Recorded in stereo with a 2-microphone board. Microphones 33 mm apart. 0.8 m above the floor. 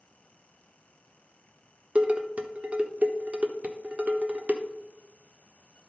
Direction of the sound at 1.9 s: 40° right (ahead or behind).